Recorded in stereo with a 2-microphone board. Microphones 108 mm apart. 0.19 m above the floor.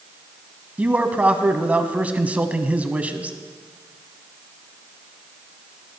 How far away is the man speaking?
About 1.1 m.